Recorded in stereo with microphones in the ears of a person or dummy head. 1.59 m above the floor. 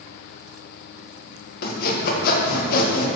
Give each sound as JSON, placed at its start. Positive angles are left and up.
{"t": 1.6, "sound": "sawing", "side_deg": 60, "distance_m": 1.6}